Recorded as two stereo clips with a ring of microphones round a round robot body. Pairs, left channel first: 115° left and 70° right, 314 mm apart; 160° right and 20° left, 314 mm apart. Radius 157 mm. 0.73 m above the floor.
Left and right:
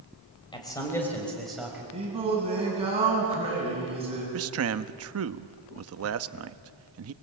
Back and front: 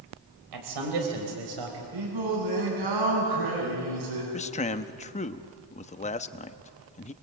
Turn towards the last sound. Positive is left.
turn(degrees=-95)